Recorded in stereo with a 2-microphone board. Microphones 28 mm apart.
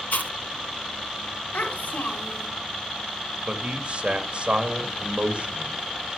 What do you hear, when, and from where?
0.1 s chewing: 85° left, 2.5 m
1.5 s a child speaking: 80° left, 3.5 m
3.5 s a man speaking: 40° right (ahead or behind), 2 m